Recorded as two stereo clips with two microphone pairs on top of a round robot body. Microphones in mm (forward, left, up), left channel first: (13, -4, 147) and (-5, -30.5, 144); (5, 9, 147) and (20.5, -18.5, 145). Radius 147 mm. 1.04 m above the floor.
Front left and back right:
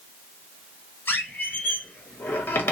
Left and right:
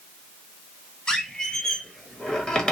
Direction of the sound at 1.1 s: 55° left.